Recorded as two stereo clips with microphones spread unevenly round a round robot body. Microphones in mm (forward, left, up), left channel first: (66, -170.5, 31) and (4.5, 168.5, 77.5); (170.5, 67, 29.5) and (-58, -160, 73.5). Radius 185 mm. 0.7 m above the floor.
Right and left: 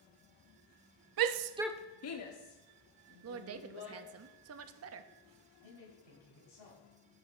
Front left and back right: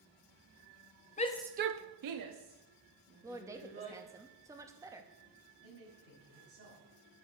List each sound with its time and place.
1.2 s a shout: 100° left, 0.7 m; by 4.0 s 100° right, 3 m
3.2 s a woman speaking: 140° left, 0.6 m
5.6 s a man speaking: 85° right, 5 m